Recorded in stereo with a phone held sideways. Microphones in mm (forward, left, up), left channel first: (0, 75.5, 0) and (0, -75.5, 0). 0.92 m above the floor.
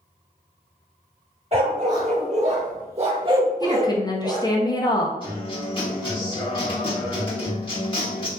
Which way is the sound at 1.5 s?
45° right (ahead or behind).